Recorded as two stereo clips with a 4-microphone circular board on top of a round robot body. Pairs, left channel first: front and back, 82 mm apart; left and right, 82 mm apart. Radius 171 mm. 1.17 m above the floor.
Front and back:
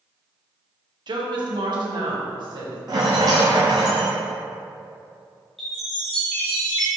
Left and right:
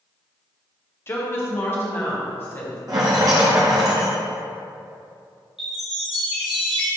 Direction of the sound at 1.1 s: 150° left.